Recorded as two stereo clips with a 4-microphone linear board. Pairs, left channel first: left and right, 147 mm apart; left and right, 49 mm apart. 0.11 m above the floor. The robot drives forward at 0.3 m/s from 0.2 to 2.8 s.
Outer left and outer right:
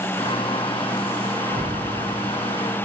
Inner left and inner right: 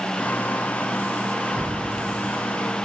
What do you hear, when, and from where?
1.5 s a whoosh: 55° left (ahead or behind), 3 m